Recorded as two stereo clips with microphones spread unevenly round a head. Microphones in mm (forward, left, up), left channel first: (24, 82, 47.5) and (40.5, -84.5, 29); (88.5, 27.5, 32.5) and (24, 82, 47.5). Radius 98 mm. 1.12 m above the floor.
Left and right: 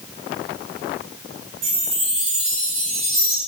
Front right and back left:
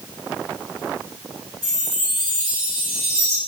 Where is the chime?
145° right, 1.8 m.